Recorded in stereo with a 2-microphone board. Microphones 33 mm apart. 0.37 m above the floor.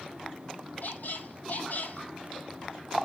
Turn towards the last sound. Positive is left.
turn(degrees=65)  # may be behind; listen again after turning